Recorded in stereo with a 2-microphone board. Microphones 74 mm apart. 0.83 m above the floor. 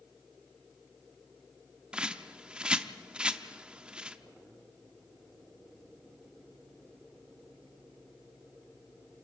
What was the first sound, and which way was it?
A bird, 10° right (ahead or behind).